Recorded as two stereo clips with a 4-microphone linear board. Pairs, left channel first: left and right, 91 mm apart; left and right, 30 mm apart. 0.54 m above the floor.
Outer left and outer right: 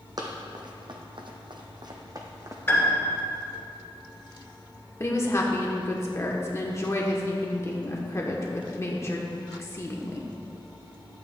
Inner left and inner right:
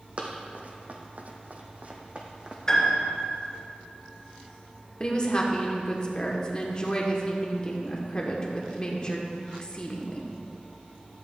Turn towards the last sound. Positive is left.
turn(degrees=30)  # may be behind; listen again after turning